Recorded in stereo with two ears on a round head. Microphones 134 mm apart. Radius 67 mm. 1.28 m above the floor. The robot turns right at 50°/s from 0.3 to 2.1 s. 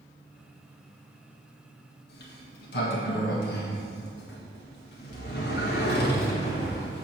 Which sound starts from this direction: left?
A sliding door, at 2.1 s.